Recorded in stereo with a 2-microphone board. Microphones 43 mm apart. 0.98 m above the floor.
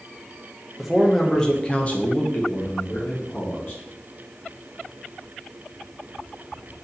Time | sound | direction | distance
0.8 | a man speaking | centre (ahead or behind) | 0.8 m